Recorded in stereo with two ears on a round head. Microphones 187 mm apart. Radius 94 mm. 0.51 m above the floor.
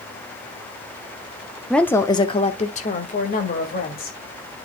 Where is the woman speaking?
Centre (ahead or behind), 0.8 m; by 4.2 s 50° left (ahead or behind), 2.5 m.